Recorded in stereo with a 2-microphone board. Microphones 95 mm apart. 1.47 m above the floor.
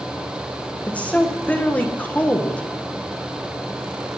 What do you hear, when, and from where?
0.9 s a woman speaking: 15° left (ahead or behind), 1.3 m